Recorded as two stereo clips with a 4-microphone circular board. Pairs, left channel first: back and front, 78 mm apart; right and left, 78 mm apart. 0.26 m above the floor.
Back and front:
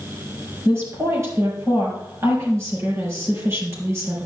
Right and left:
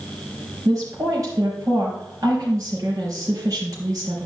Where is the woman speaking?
50° left, 4.5 m.